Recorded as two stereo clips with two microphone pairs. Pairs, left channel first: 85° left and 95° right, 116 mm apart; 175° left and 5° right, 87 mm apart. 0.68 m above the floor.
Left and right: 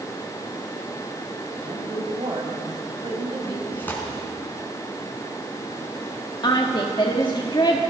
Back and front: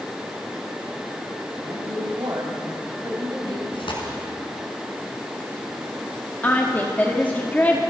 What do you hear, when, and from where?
1.6 s a woman speaking: 50° right, 4.5 m
3.7 s tearing paper: 160° left, 4.5 m
6.4 s a woman speaking: 115° left, 1.5 m